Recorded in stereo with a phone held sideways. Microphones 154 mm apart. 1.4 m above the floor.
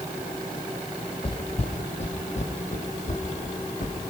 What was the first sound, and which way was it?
Footsteps, 35° left (ahead or behind).